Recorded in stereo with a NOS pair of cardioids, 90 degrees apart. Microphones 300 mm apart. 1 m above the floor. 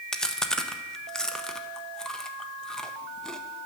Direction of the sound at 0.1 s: Straight ahead.